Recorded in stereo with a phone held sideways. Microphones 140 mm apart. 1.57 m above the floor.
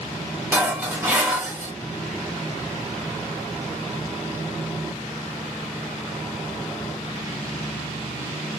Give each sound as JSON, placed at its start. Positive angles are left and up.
{"t": 0.5, "sound": "dishes clattering", "side_deg": -15, "distance_m": 1.1}